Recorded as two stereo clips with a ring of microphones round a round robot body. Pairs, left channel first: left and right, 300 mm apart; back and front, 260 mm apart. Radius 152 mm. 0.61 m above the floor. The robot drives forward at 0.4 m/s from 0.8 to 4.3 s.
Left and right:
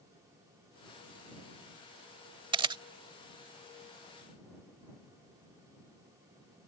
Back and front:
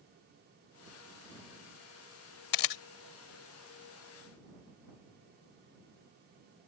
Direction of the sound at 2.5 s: 165° right.